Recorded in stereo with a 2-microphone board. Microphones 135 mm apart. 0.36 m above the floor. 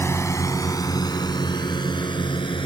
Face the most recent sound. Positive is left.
turn(degrees=35)  # may be behind; listen again after turning